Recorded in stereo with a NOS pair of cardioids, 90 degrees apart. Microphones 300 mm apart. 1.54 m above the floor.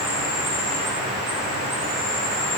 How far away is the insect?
About 1.2 m.